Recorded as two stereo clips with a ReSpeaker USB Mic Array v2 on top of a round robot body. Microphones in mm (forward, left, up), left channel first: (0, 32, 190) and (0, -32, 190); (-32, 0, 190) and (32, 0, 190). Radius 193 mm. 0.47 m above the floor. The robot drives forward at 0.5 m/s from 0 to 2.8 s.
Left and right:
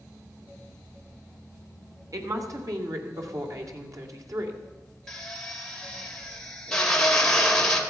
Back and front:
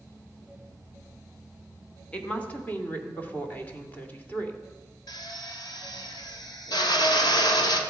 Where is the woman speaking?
105° right, 2.5 m; by 4.6 s 115° right, 2.5 m.